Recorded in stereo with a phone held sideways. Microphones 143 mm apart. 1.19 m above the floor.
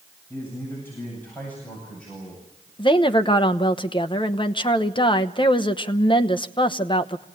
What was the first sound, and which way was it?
A man speaking, 15° left (ahead or behind).